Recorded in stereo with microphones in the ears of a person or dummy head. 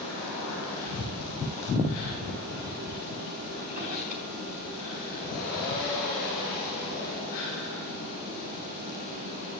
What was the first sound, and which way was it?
A drawer, 45° right (ahead or behind).